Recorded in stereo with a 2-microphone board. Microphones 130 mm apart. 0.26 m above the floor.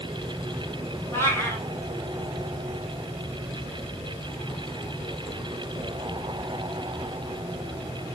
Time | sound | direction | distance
1.1 | a cat meowing | 20° left (ahead or behind) | 4 m